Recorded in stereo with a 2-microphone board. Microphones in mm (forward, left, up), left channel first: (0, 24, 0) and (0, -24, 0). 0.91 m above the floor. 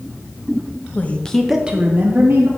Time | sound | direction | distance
0.9 | a woman speaking | 35° left (ahead or behind) | 0.9 m